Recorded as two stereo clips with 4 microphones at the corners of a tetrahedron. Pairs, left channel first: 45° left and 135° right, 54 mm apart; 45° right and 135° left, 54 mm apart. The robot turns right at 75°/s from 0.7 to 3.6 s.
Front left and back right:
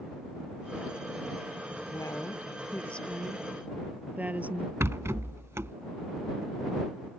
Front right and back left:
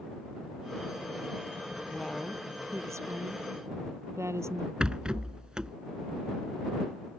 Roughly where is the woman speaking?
Ahead left.